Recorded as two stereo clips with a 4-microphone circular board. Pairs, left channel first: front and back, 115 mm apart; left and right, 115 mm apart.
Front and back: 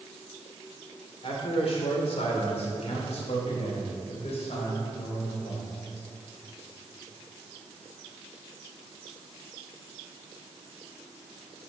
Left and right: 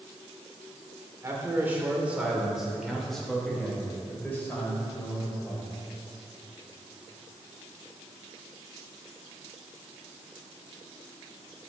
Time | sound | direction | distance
1.2 | a man speaking | 25° right | 2.5 m